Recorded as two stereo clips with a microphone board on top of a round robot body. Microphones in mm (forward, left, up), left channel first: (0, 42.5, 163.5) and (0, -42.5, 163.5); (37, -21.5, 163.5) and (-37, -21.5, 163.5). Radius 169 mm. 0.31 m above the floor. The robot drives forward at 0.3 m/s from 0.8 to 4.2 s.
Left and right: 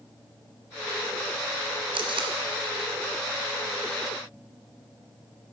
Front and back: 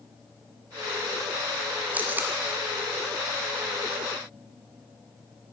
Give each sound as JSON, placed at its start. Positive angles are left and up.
{"t": 1.9, "sound": "tape being pulled", "azimuth_deg": -110, "distance_m": 1.2}